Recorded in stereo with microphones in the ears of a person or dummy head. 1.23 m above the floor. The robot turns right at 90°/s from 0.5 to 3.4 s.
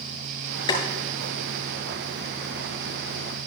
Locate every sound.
0.7 s boiling: 30° left (ahead or behind), 6.5 m; by 0.8 s 20° left (ahead or behind), 6.5 m